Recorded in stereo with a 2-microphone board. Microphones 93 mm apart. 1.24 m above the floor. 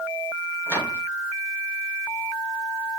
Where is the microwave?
15° left (ahead or behind), 8 m.